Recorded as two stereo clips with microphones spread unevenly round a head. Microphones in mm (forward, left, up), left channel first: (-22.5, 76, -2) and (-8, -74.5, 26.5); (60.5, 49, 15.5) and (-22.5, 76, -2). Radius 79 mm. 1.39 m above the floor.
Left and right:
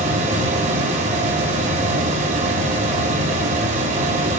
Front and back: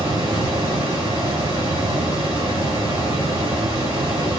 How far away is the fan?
About 1.2 m.